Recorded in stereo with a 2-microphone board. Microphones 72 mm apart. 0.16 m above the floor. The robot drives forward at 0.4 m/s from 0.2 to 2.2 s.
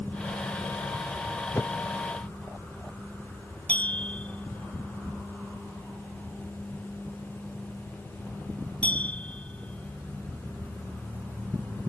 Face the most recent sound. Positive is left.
turn(degrees=15)  # may be behind; listen again after turning